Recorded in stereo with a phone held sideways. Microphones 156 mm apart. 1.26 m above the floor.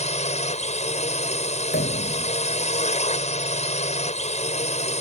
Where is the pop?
90° left.